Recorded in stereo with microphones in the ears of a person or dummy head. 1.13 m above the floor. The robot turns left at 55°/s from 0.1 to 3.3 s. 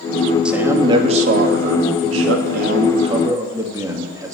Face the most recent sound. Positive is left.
turn(degrees=-160)